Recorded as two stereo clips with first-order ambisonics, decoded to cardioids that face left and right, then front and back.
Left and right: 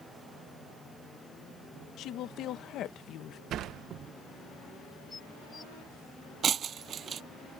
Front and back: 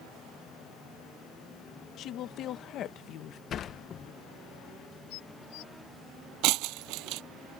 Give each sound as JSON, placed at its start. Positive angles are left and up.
{"t": 2.0, "sound": "a woman speaking", "azimuth_deg": 45}
{"t": 3.5, "sound": "a sliding door", "azimuth_deg": -50}
{"t": 5.1, "sound": "dishes clattering", "azimuth_deg": 15}
{"t": 6.4, "sound": "breaking glass", "azimuth_deg": -155}